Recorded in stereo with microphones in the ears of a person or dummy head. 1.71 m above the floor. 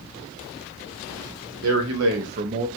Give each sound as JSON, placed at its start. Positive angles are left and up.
{"t": 1.6, "sound": "a man speaking", "side_deg": -75, "distance_m": 1.0}